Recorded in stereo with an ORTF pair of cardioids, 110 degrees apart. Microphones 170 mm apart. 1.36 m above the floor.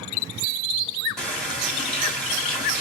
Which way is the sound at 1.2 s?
Straight ahead.